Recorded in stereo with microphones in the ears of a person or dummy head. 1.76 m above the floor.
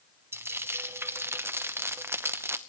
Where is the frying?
20° right (ahead or behind), 0.8 m.